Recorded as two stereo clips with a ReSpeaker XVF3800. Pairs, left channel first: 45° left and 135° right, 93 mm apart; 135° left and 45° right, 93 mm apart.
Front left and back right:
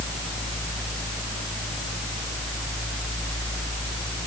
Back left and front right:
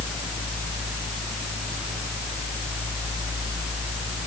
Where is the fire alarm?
I don't hear a fire alarm.